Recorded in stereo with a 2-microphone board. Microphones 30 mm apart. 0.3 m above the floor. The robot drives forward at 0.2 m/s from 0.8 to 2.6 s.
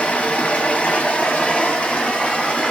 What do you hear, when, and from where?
0.0 s running water: 55° left (ahead or behind), 0.8 m; by 2.7 s 40° left (ahead or behind), 1.0 m